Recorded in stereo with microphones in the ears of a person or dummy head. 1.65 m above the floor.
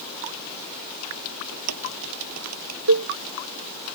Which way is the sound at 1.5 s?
85° right.